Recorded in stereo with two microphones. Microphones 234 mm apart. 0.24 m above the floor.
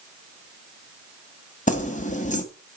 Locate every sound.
1.7 s keys jangling: 30° left (ahead or behind), 1.1 m